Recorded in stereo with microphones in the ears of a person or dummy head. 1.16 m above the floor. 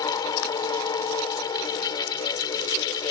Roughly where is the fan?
Left.